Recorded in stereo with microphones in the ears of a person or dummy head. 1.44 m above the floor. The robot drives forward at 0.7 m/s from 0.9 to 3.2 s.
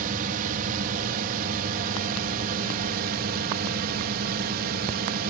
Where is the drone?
50° right (ahead or behind).